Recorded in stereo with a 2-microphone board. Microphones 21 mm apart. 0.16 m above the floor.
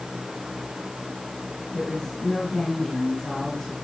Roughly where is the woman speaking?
Left.